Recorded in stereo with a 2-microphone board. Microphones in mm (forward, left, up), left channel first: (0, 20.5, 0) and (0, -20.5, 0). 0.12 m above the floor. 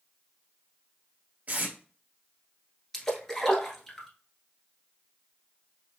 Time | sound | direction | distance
1.5 | tape being pulled | 35° right (ahead or behind) | 1.8 m
2.9 | a splash | 10° left (ahead or behind) | 1.2 m